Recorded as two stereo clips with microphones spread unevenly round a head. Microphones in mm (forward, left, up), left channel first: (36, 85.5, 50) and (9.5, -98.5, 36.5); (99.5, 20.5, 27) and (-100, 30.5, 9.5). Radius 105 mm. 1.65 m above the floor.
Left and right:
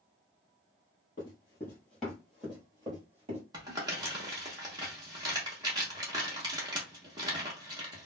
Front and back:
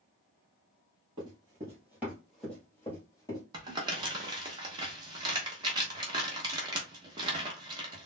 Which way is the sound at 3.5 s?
145° right.